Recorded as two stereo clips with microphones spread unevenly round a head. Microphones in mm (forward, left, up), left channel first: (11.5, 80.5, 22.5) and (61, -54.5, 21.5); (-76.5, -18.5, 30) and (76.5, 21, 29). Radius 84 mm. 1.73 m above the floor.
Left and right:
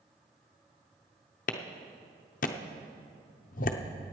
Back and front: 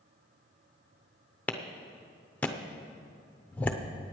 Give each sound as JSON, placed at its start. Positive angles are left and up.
{"t": 1.5, "sound": "a clap", "azimuth_deg": 115, "distance_m": 0.6}